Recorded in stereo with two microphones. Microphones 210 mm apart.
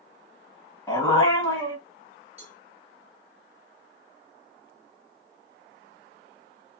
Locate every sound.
0.9 s a dog barking: 15° left (ahead or behind), 1.2 m
2.4 s a cowbell: 30° right (ahead or behind), 1.9 m